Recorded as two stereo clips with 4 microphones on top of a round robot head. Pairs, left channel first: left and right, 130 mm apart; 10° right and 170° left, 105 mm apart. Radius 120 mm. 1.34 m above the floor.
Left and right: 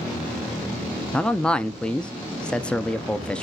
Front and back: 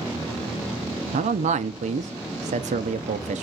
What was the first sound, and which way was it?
A man speaking, 170° left.